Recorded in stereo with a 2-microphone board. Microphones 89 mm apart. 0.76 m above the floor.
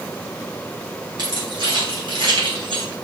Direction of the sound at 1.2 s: 55° right (ahead or behind).